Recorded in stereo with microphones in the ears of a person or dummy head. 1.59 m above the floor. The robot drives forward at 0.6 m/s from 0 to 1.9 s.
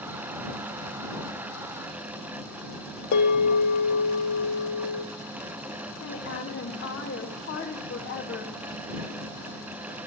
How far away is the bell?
About 1.5 m.